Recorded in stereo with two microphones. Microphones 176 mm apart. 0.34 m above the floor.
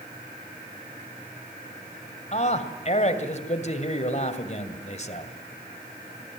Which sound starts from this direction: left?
A man speaking, at 2.3 s.